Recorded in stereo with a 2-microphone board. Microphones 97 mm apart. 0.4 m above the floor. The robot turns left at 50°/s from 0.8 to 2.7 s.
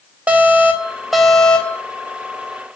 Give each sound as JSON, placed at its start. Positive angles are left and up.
{"t": 0.3, "sound": "an alarm", "azimuth_deg": -160, "distance_m": 3.0}